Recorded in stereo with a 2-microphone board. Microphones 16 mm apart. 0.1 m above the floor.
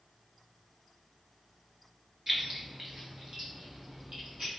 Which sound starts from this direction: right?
Keys jangling, at 2.3 s.